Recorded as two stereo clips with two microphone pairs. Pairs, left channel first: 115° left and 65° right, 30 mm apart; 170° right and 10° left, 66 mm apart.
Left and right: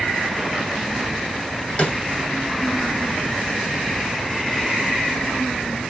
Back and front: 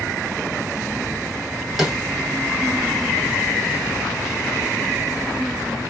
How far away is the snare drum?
About 1.9 m.